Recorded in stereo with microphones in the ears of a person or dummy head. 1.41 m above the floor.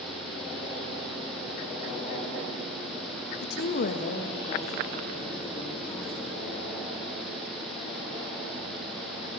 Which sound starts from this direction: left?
A woman speaking, at 3.4 s.